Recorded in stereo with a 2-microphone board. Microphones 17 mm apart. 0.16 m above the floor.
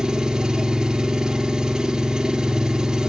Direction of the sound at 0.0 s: 45° right (ahead or behind).